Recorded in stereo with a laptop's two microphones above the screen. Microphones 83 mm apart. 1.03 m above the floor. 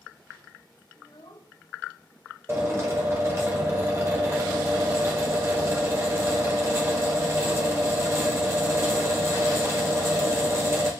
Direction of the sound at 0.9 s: 70° left (ahead or behind).